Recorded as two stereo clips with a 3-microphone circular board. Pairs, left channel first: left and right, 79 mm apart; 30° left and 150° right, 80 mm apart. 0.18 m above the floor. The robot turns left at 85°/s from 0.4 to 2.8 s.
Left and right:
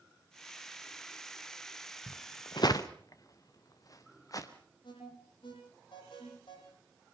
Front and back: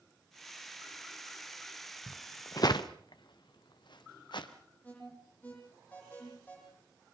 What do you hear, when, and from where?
2.1 s footsteps: 110° left, 1.1 m; by 4.5 s 50° left, 2.5 m
4.8 s an alarm: 100° left, 10 m